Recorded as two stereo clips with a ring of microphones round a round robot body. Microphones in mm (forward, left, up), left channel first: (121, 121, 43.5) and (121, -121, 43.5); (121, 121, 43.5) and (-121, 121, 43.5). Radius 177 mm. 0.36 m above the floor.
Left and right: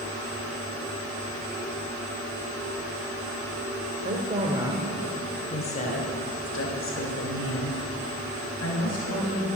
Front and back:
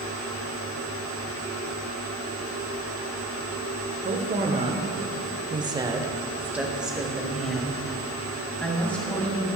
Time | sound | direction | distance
4.0 | a woman speaking | 130° right | 1.1 m